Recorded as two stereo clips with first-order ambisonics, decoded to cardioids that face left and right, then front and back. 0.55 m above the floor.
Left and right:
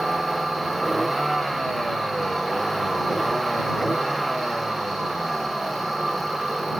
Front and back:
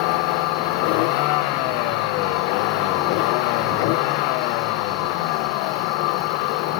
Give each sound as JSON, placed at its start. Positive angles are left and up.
{"t": 0.0, "sound": "a vehicle", "azimuth_deg": -5}